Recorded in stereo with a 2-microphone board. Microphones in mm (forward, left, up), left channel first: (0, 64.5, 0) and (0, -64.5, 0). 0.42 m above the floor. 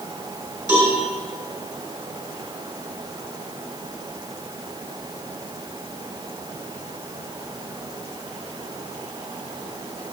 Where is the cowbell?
15° right (ahead or behind), 3.5 m.